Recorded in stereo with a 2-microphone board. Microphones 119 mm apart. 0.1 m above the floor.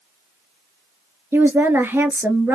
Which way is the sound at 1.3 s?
15° right (ahead or behind).